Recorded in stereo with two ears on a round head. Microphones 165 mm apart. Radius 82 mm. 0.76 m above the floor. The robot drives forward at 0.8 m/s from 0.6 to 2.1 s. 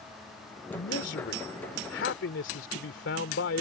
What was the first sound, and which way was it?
A man speaking, 65° left (ahead or behind).